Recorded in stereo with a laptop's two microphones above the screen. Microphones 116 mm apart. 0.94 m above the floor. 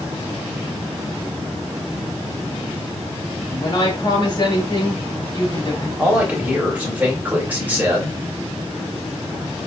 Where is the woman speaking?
35° left (ahead or behind), 2.5 m.